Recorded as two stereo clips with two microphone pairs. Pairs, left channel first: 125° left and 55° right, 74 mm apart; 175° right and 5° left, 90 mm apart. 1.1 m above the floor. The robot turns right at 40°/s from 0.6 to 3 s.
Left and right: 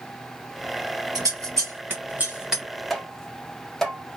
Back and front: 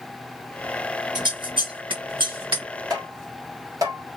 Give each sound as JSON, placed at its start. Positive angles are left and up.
{"t": 1.1, "sound": "scissors", "azimuth_deg": -30, "distance_m": 1.4}
{"t": 2.9, "sound": "tapping", "azimuth_deg": 35, "distance_m": 0.8}